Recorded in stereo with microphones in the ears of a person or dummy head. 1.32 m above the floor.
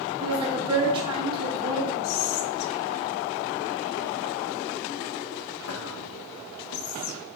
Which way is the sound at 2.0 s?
85° left.